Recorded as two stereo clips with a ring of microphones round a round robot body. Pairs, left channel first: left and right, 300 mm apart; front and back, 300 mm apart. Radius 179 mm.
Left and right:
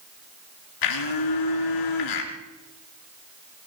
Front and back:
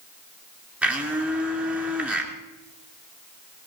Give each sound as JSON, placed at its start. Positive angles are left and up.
{"t": 0.8, "sound": "a blender", "azimuth_deg": 95, "distance_m": 2.5}